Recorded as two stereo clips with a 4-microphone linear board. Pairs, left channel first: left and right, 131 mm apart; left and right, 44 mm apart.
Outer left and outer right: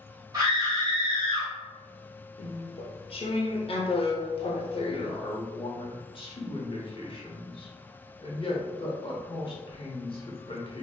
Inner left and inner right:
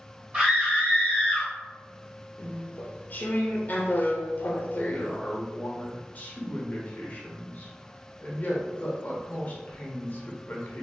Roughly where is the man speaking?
Left.